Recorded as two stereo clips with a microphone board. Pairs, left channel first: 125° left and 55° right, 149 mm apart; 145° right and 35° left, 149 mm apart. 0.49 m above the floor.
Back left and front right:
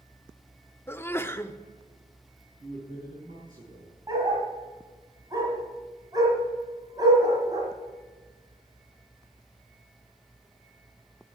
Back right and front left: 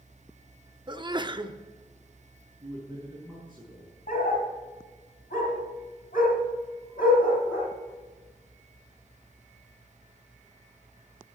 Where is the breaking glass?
I don't hear breaking glass.